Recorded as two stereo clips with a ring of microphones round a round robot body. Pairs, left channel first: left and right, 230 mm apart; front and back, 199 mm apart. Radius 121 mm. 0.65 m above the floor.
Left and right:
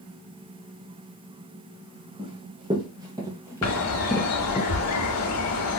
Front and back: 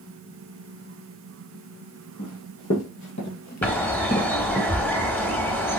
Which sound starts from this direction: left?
A bird, at 3.6 s.